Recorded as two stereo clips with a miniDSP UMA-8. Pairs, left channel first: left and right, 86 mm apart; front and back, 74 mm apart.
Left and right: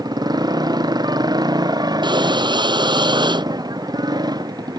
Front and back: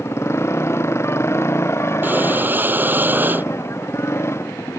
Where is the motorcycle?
50° right.